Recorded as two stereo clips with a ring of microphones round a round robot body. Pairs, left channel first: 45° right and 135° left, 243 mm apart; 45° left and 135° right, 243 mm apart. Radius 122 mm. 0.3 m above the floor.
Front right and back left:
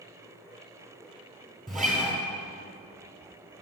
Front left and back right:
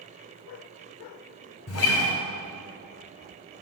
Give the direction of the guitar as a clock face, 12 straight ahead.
10 o'clock.